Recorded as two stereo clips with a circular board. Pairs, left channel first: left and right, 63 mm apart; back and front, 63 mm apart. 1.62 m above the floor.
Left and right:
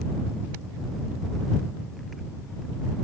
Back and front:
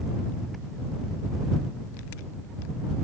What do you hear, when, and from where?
Only background noise.